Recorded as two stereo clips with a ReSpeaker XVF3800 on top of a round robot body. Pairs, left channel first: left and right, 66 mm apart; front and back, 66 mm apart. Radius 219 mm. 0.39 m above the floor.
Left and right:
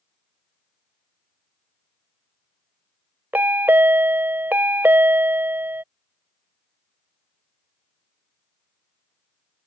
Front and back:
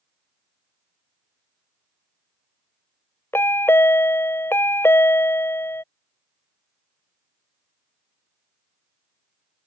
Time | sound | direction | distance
3.3 | a chime | 40° right | ?